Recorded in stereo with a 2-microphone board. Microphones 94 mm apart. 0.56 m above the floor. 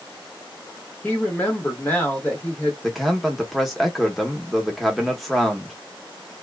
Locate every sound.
1.0 s a woman speaking: 15° left (ahead or behind), 1.2 m
2.8 s a man speaking: centre (ahead or behind), 0.8 m